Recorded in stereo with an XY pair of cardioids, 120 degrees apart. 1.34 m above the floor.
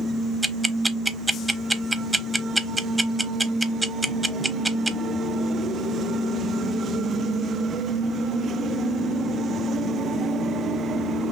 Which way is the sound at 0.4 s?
15° right.